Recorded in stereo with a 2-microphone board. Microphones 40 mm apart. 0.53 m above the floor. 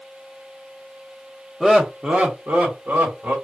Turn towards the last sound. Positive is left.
turn(degrees=-55)  # may be behind; listen again after turning